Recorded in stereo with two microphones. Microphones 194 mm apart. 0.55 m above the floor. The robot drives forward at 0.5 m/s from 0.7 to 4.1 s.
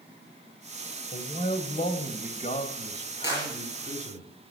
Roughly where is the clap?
Left.